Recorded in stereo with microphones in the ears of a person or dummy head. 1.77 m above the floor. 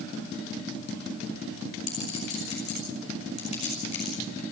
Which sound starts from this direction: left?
A clink, at 1.9 s.